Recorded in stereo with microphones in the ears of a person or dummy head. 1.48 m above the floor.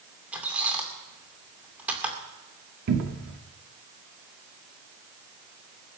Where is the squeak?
10° right (ahead or behind), 2.5 m.